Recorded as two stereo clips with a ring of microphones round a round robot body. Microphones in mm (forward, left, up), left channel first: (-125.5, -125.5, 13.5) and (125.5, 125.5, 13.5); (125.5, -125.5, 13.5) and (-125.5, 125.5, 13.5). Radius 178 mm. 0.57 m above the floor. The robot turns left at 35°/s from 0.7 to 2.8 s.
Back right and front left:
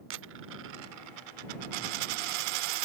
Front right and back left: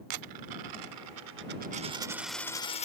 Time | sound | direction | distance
0.1 | a dropped coin | 100° left | ?